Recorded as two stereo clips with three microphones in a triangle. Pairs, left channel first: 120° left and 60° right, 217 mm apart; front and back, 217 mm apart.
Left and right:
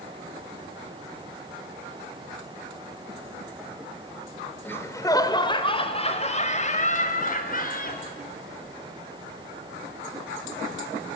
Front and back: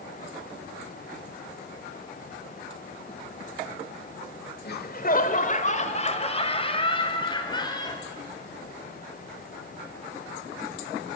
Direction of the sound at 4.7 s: 40° left.